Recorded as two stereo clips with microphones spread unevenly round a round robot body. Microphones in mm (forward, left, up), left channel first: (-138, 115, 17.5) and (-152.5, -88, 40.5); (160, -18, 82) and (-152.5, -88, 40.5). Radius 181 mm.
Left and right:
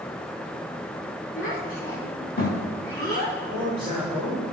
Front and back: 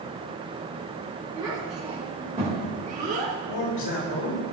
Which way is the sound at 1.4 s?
110° left.